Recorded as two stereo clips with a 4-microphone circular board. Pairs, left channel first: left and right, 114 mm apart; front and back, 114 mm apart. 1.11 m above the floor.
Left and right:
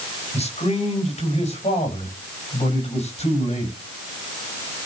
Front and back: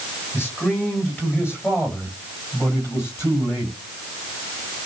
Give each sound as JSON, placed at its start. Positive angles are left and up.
{"t": 0.3, "sound": "a man speaking", "azimuth_deg": 70, "distance_m": 4.5}